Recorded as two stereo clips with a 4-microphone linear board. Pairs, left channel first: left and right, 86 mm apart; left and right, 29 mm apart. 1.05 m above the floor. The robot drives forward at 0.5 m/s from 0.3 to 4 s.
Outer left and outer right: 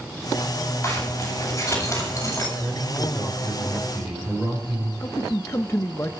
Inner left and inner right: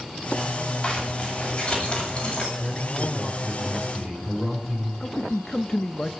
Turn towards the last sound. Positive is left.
turn(degrees=30)  # may be behind; listen again after turning